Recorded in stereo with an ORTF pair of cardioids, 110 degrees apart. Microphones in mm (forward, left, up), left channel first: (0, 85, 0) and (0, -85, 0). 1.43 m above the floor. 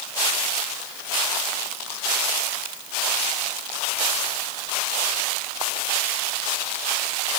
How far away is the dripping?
I don't hear dripping.